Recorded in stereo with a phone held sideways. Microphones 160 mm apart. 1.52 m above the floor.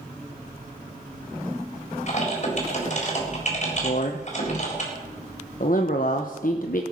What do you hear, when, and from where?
2.1 s typing on a keyboard: 50° left (ahead or behind), 4 m
3.8 s a man speaking: 60° left (ahead or behind), 0.9 m